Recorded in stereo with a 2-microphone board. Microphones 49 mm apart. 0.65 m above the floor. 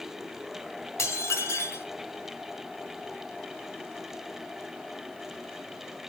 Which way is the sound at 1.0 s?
80° left.